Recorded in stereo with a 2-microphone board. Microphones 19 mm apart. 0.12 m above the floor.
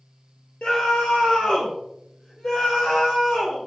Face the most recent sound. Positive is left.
turn(degrees=70)  # may be behind; listen again after turning